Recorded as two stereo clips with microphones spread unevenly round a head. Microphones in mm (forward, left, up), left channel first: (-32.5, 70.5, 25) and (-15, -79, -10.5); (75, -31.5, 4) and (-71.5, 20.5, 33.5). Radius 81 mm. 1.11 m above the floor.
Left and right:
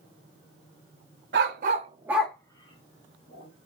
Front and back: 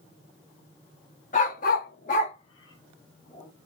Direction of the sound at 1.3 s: 65° right.